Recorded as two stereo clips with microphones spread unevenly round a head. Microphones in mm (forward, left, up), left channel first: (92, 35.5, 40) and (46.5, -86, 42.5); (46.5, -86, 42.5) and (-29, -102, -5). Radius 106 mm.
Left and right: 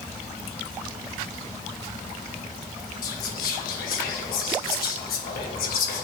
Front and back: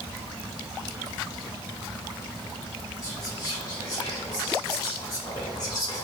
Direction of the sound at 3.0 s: 70° left.